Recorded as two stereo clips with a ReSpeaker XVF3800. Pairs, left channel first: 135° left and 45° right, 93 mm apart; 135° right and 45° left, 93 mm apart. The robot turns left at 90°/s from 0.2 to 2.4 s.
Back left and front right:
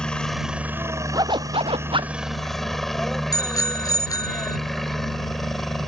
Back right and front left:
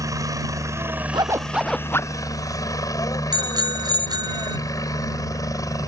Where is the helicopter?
60° left; by 5.9 s 140° right.